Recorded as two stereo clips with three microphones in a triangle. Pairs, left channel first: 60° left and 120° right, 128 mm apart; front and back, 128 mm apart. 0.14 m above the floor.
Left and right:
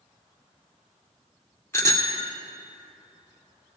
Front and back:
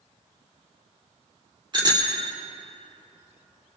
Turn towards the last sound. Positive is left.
turn(degrees=130)